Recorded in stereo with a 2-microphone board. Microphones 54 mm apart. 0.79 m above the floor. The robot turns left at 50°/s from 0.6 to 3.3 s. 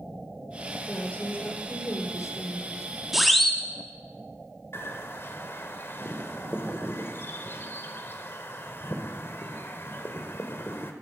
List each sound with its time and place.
0.9 s a woman speaking: 165° left, 2.5 m; by 2.9 s 65° left, 2.5 m
3.1 s a siren: 5° right (ahead or behind), 2.5 m; by 3.6 s 5° left (ahead or behind), 2.5 m
4.7 s a bird: 50° left (ahead or behind), 1.6 m